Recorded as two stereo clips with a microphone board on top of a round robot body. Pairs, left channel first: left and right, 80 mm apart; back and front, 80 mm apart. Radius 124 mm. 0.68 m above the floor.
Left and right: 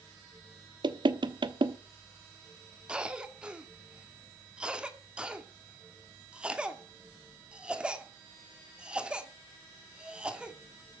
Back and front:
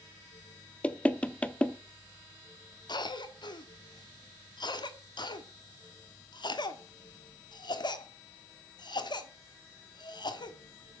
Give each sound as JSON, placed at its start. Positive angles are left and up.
{"t": 0.8, "sound": "knocking", "azimuth_deg": -105, "distance_m": 1.2}
{"t": 2.9, "sound": "a cough", "azimuth_deg": -170, "distance_m": 2.5}